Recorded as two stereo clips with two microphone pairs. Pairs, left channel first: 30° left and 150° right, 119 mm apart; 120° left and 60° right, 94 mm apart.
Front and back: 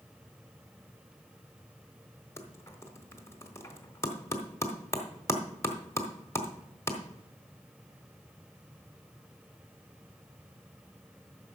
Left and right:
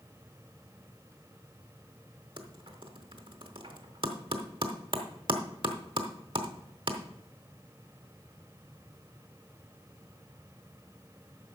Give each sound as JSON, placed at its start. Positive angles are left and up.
{"t": 2.4, "sound": "typing on a keyboard", "azimuth_deg": -40, "distance_m": 1.1}